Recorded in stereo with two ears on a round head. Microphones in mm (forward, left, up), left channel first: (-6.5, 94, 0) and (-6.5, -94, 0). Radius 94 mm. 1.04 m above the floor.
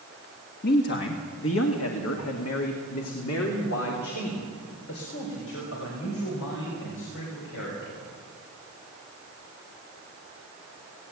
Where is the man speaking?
45° left (ahead or behind), 1.4 m; by 8.0 s 65° left (ahead or behind), 6.5 m.